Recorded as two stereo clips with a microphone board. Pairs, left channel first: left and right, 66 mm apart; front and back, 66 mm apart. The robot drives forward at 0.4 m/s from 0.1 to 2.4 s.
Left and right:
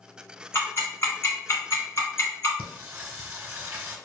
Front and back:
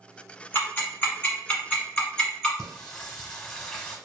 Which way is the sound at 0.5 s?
50° left.